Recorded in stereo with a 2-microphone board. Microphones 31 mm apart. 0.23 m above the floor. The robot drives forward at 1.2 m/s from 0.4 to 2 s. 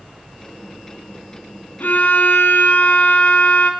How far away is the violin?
About 0.5 m.